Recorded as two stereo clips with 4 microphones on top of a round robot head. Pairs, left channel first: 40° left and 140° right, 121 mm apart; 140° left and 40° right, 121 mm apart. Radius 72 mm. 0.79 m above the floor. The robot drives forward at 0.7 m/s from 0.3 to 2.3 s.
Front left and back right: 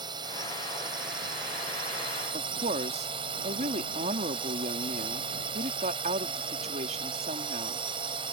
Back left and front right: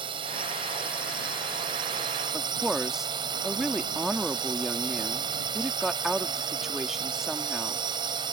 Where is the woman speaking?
125° right.